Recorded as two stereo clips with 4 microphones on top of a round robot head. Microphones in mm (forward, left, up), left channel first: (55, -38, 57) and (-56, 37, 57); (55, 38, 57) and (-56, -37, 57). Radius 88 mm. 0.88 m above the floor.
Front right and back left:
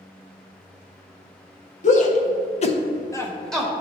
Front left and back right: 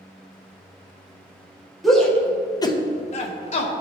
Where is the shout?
55° right, 1.5 m; by 3.7 s 60° left, 1.3 m.